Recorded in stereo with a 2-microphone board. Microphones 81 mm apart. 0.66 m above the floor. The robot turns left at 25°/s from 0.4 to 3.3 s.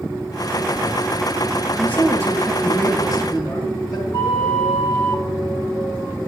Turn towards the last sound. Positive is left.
turn(degrees=80)